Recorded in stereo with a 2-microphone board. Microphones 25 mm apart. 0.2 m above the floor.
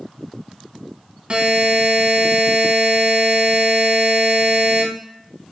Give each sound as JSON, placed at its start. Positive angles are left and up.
{"t": 1.3, "sound": "a buzzer", "side_deg": -45, "distance_m": 0.5}